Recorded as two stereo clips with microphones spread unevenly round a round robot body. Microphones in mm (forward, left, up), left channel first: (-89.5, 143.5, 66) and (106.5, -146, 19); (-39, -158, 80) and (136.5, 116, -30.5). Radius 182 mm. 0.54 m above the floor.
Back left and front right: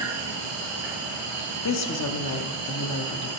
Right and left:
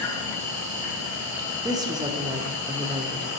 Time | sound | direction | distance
0.0 | an insect | 10° right | 3 m
1.6 | a woman speaking | 100° left | 0.9 m